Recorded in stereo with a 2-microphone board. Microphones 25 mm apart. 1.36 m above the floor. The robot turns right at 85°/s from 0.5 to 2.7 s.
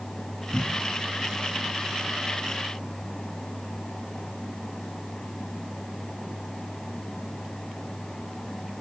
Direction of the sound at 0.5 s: 5° right (ahead or behind).